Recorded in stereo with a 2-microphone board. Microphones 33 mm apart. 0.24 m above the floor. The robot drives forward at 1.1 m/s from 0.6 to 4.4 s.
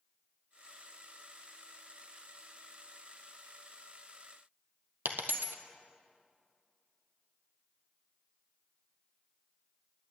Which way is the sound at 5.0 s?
70° right (ahead or behind).